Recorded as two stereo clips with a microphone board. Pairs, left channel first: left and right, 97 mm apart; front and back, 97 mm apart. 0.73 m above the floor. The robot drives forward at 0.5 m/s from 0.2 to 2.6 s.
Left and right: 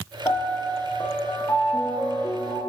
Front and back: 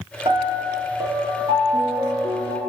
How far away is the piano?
About 7.5 m.